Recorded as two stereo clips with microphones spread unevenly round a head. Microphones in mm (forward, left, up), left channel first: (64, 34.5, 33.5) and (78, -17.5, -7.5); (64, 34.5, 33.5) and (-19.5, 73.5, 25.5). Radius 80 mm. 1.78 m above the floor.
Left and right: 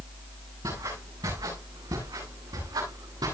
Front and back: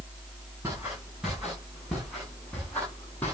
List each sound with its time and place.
0.6 s footsteps: 125° right, 8.5 m; by 3.3 s 100° right, 10 m